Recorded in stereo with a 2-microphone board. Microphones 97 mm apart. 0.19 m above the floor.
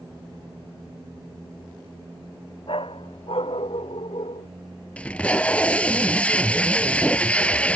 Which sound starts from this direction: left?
A dog barking, at 2.7 s.